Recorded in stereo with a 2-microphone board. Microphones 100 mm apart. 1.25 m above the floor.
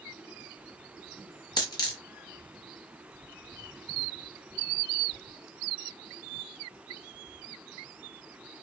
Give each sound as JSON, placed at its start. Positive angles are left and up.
{"t": 1.6, "sound": "a dropped coin", "side_deg": 45, "distance_m": 0.9}